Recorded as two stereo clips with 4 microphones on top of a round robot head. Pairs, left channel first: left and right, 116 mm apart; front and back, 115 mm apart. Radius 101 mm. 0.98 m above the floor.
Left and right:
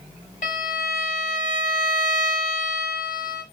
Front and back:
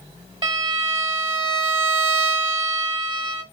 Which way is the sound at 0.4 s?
135° left.